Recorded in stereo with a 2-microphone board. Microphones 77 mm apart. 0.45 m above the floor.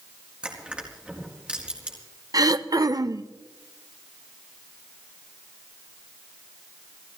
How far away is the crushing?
About 4.5 m.